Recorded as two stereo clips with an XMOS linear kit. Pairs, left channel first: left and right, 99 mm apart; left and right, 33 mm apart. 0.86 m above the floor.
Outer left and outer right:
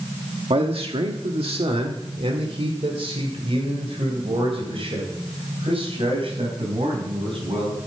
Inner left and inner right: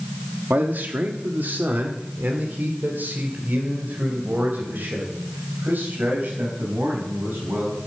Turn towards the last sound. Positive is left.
turn(degrees=-75)  # may be behind; listen again after turning